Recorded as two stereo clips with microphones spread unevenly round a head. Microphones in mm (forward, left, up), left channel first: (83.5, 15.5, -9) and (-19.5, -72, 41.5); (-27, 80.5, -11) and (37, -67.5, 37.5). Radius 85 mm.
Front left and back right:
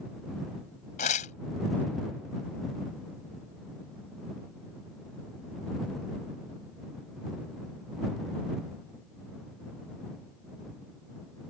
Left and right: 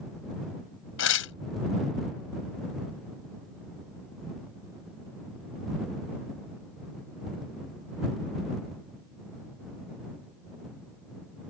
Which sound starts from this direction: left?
Tearing paper, at 1.0 s.